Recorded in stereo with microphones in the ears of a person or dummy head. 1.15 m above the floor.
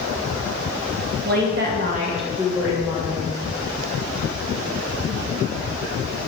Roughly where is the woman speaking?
Right.